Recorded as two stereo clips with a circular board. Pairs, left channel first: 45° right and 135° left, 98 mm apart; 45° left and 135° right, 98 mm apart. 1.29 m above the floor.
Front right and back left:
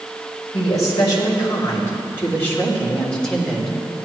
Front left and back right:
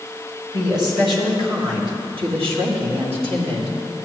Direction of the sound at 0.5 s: 90° right.